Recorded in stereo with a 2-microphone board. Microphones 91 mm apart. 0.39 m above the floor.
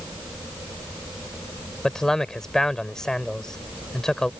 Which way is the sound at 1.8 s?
5° left (ahead or behind).